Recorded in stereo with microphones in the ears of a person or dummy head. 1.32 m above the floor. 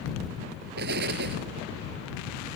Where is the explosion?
60° right (ahead or behind).